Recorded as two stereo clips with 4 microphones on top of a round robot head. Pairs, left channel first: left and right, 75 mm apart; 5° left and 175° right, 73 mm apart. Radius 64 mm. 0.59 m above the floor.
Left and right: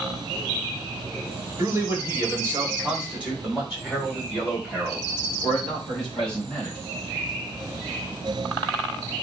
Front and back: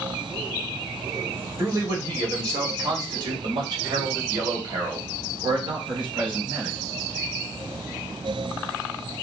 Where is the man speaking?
130° right, 1.3 m; by 6.8 s 170° left, 3.5 m.